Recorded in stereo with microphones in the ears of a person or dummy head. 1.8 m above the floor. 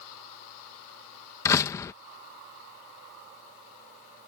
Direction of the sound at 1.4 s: 15° left (ahead or behind).